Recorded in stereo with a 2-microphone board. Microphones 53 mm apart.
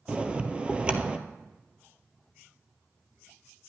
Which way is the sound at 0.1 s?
20° right (ahead or behind).